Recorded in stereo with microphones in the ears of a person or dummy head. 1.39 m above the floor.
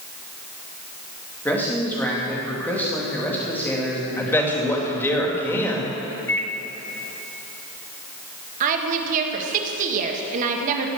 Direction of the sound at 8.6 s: 50° right (ahead or behind).